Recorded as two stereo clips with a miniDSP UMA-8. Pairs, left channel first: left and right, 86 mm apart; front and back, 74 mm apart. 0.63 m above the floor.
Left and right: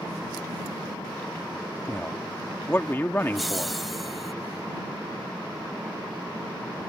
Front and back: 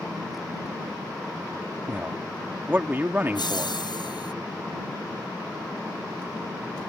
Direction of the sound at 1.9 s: 135° left.